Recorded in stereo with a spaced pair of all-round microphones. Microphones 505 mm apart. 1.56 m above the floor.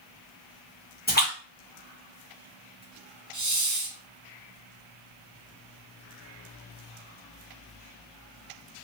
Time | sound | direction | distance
1.1 | a splash | 20° left (ahead or behind) | 1.2 m
3.3 | a hiss | 35° right (ahead or behind) | 0.5 m